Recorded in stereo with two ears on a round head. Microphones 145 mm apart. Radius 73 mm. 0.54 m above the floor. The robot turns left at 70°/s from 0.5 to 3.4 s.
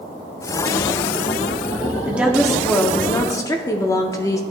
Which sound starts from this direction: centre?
A woman speaking, at 2.1 s.